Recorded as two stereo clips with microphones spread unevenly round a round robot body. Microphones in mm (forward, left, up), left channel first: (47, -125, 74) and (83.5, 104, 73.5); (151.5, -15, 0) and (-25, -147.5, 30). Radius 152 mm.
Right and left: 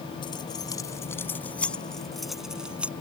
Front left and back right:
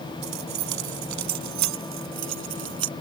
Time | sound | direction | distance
0.2 | keys jangling | 175° right | ?